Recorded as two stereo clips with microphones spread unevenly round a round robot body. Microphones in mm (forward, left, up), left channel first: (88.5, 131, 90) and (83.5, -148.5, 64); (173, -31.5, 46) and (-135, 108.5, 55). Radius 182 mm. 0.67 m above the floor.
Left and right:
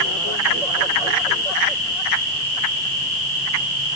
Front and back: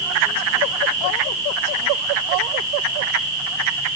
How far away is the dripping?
I don't hear dripping.